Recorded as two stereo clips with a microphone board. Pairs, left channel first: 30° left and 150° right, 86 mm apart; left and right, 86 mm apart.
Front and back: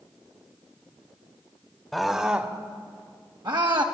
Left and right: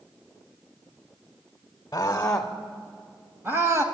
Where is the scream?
120° left, 1.0 m; by 3.8 s 145° right, 1.7 m.